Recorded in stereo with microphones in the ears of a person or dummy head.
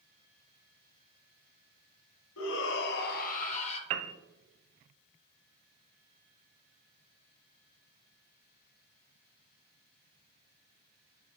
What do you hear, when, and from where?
2.4 s a shout: 80° left, 1.0 m; by 3.8 s 35° left (ahead or behind), 1.1 m
3.9 s a piano: 40° right (ahead or behind), 0.5 m